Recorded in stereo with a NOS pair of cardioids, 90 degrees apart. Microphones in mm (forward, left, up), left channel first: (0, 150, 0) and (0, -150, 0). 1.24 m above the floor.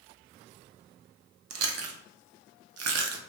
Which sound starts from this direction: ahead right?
Chewing, at 1.5 s.